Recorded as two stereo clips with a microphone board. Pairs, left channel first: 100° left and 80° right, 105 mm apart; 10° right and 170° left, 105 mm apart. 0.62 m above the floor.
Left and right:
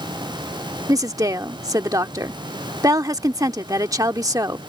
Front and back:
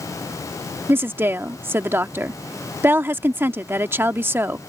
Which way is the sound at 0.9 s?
125° right.